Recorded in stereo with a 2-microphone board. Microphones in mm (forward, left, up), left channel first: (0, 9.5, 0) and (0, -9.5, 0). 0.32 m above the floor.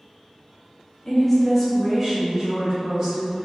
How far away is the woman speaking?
About 0.9 m.